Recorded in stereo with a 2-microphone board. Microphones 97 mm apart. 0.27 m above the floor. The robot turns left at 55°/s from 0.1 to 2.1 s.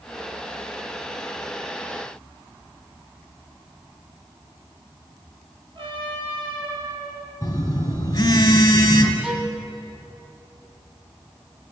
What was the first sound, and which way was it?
A trumpet, 55° right (ahead or behind).